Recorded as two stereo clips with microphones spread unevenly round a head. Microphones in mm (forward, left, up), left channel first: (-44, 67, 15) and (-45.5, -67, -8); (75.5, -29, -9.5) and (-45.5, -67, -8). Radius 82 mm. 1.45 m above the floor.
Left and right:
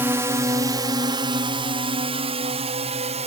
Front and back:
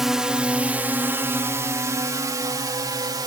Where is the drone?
80° right; by 3.3 s 110° right.